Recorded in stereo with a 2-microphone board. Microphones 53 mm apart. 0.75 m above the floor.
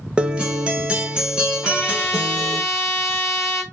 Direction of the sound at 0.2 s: 20° right (ahead or behind).